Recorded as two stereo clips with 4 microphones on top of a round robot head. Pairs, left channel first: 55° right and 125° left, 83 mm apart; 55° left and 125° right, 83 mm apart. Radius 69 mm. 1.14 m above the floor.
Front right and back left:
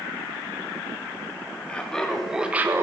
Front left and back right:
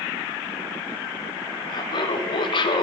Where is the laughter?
20° left, 2.5 m; by 2.8 s 70° left, 1.4 m.